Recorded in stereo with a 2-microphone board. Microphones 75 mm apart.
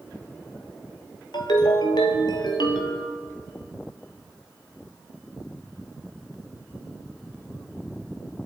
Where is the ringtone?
70° left (ahead or behind), 1.8 m.